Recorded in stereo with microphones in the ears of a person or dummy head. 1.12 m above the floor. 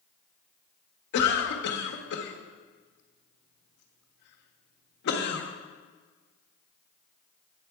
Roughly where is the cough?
Left.